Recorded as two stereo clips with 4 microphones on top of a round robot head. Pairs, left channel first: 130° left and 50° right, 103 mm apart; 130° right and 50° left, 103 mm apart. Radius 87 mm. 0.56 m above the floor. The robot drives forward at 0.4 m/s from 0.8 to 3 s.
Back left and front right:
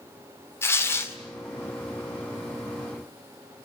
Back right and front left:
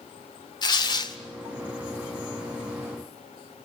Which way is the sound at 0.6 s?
165° right.